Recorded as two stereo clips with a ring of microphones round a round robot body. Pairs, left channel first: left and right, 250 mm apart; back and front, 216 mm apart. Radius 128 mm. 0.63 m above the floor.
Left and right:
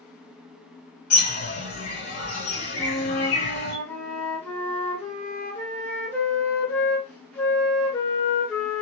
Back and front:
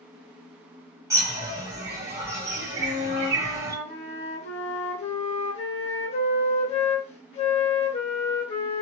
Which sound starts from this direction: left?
A bird, at 1.1 s.